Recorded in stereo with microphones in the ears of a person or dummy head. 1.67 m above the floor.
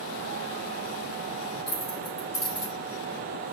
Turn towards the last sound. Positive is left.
turn(degrees=-5)  # may be behind; listen again after turning